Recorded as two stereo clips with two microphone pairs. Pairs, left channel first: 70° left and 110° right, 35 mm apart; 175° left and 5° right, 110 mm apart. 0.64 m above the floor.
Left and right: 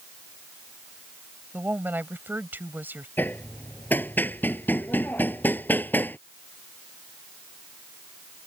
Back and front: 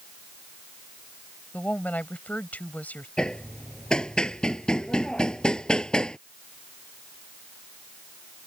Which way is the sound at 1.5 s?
105° right.